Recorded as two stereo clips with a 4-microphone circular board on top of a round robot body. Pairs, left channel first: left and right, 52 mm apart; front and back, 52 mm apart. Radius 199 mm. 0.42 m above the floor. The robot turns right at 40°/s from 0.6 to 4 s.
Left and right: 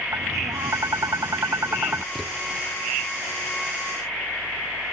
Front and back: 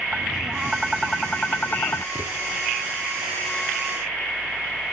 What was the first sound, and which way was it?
Tapping, 105° right.